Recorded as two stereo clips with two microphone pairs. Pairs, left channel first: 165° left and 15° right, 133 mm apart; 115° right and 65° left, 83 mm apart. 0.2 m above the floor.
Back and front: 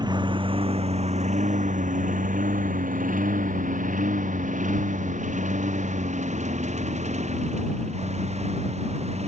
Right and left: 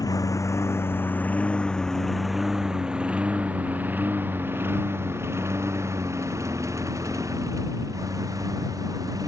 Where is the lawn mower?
70° right; by 9.3 s 20° left.